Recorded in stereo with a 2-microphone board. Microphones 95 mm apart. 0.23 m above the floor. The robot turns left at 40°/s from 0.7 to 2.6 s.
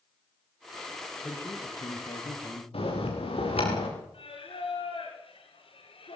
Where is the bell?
75° left (ahead or behind), 7.5 m.